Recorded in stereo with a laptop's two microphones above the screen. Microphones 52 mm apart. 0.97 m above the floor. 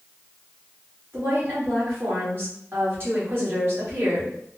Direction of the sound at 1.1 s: 45° right (ahead or behind).